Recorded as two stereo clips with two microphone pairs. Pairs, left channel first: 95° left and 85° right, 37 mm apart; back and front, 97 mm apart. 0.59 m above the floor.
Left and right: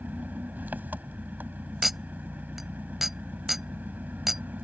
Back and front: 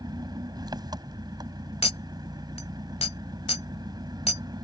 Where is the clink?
170° right.